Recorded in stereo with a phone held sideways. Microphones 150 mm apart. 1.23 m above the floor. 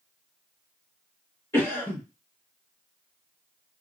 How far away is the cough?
About 1.4 m.